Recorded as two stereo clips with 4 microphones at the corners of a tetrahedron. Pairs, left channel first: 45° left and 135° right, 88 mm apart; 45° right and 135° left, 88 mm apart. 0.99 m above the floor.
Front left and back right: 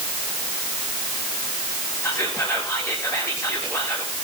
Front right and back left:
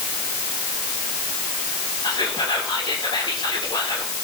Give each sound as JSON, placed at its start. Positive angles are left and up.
{"t": 2.0, "sound": "whispering", "azimuth_deg": -10, "distance_m": 3.0}